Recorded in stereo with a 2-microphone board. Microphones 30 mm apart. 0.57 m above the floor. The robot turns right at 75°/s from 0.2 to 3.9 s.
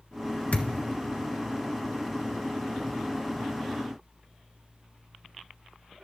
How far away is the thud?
About 1.5 m.